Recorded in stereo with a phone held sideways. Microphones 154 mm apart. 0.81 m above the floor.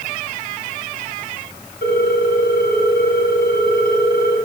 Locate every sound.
1.8 s a ringtone: 70° left (ahead or behind), 2.5 m